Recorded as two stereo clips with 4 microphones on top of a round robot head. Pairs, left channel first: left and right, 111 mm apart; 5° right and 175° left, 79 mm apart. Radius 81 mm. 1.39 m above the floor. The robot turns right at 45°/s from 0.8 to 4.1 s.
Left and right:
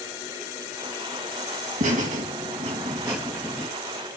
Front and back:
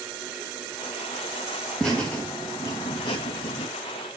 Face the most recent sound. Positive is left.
turn(degrees=20)